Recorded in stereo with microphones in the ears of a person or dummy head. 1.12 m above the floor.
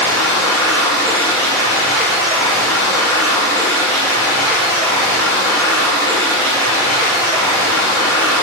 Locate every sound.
0.0 s running water: 20° right (ahead or behind), 1.8 m